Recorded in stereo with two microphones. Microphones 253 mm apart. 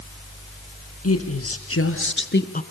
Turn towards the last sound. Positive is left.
turn(degrees=30)  # may be behind; listen again after turning